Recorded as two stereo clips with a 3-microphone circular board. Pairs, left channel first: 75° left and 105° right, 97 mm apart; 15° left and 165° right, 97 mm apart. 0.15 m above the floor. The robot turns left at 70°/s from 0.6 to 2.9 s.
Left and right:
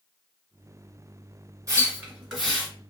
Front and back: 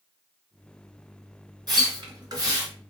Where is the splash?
145° right, 2 m; by 2.7 s 145° left, 2 m.